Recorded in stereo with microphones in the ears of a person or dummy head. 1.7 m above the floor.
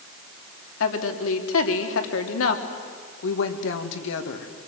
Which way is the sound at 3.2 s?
75° left (ahead or behind).